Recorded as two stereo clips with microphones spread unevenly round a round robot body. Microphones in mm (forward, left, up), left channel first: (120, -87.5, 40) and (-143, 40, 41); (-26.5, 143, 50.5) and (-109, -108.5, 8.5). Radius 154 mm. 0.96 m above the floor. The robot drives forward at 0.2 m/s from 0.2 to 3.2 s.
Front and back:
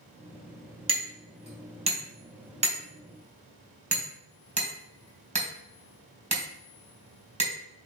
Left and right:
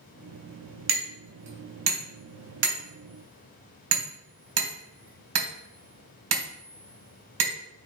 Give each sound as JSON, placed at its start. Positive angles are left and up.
{"t": 0.9, "sound": "hammering", "azimuth_deg": -135, "distance_m": 3.0}